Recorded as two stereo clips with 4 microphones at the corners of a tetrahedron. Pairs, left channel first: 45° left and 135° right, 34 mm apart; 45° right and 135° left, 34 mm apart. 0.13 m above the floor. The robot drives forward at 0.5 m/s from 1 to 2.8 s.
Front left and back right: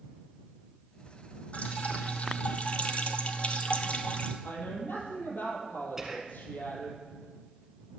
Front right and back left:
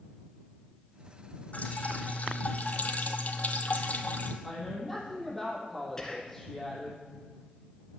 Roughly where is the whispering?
Right.